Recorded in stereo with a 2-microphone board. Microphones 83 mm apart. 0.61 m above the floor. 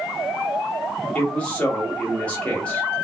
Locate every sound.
1.1 s a man speaking: 15° left (ahead or behind), 1.7 m